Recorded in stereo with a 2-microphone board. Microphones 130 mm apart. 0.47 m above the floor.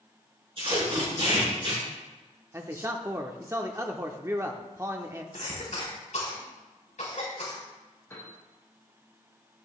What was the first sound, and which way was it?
Tape being pulled, 45° right (ahead or behind).